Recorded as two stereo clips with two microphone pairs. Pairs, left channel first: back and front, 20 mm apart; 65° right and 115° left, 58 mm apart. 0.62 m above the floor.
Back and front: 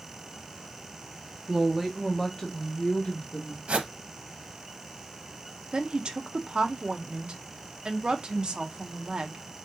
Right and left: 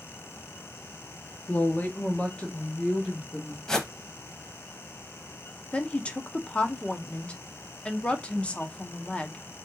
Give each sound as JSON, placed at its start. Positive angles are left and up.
{"t": 1.5, "sound": "a woman speaking", "azimuth_deg": -30, "distance_m": 1.1}
{"t": 3.7, "sound": "a whoosh", "azimuth_deg": 15, "distance_m": 1.0}
{"t": 5.7, "sound": "a woman speaking", "azimuth_deg": 0, "distance_m": 0.8}